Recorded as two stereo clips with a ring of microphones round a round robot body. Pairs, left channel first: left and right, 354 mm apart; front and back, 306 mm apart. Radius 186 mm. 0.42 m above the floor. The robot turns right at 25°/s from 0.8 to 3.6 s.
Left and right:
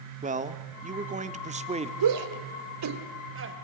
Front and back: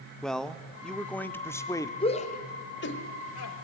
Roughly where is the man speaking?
Right.